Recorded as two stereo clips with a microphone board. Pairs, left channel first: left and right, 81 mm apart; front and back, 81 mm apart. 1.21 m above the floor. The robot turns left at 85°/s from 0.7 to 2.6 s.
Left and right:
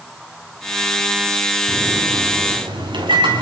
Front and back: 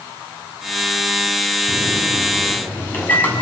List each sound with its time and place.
1.7 s a microwave: 10° left, 7 m; by 3.4 s 65° right, 7 m